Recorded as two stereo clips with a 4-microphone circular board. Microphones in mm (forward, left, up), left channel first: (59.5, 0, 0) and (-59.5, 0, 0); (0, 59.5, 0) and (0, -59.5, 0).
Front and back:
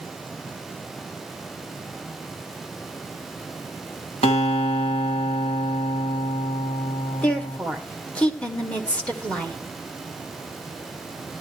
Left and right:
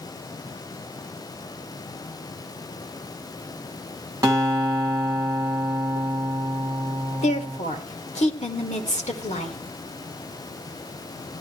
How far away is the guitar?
About 2 m.